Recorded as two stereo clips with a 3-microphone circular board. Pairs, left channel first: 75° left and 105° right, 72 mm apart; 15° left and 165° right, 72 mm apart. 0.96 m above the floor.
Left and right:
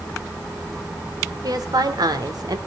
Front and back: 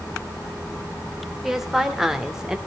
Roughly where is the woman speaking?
Right.